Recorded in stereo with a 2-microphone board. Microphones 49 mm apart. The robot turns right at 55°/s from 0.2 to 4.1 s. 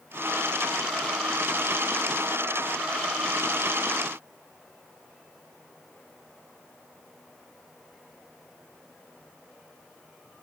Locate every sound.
Only background noise.